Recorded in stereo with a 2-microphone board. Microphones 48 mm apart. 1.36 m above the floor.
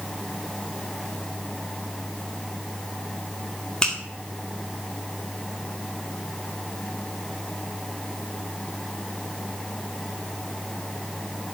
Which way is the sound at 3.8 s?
20° left (ahead or behind).